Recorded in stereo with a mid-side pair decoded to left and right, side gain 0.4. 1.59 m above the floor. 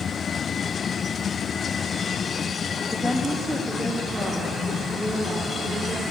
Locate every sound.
2.9 s a woman speaking: 15° left, 0.5 m; by 6.0 s straight ahead, 3.5 m